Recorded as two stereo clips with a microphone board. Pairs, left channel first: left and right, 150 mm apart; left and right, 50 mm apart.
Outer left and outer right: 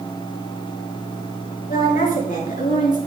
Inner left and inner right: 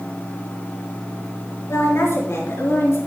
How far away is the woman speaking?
About 5.5 m.